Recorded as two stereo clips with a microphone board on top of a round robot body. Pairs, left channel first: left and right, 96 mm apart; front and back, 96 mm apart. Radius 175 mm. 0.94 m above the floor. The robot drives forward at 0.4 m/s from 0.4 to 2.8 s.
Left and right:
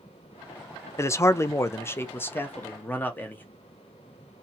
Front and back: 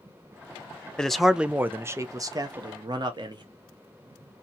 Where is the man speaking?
75° left, 0.7 m; by 3.5 s 155° left, 1.0 m.